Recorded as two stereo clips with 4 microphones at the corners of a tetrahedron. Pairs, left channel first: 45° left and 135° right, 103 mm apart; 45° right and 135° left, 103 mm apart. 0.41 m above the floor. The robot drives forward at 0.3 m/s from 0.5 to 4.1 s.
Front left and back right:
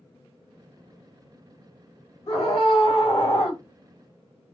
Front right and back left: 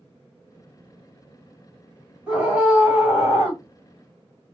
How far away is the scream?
About 1.9 m.